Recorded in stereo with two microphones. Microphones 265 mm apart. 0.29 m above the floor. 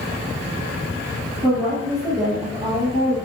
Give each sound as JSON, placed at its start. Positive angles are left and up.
{"t": 1.4, "sound": "a woman speaking", "side_deg": -10, "distance_m": 4.5}